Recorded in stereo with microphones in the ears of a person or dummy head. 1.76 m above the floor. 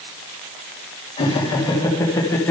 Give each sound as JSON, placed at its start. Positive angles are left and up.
{"t": 1.2, "sound": "laughter", "side_deg": 25, "distance_m": 1.8}